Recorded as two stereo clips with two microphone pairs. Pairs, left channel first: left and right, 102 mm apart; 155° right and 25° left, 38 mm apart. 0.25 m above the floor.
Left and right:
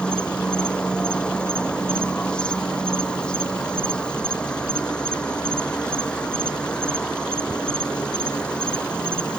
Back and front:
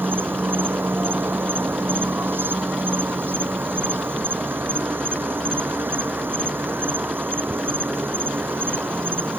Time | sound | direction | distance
0.0 | an insect | 10° left | ?